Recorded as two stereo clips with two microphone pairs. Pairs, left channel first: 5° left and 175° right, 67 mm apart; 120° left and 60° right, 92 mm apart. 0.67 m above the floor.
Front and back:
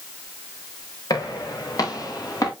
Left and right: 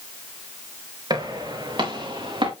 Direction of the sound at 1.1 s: 20° right.